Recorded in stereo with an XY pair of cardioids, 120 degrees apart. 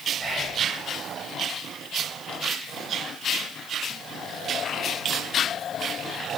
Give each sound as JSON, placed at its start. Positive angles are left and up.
{"t": 0.2, "sound": "whispering", "azimuth_deg": -25, "distance_m": 1.2}